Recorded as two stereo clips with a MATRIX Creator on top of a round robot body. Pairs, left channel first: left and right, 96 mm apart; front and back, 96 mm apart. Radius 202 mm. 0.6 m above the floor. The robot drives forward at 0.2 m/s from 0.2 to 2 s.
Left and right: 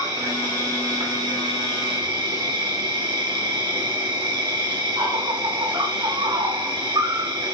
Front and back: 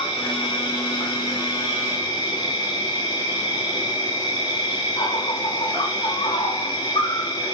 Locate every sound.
0.0 s an insect: 35° right, 1.1 m; by 7.5 s 50° right, 0.9 m